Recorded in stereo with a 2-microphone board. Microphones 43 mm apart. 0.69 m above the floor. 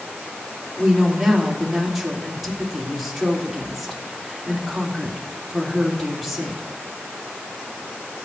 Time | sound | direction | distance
0.8 | a woman speaking | 5° right (ahead or behind) | 2 m